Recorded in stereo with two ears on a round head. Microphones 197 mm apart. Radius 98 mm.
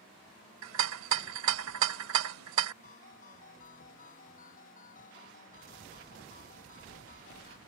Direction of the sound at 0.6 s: 70° right (ahead or behind).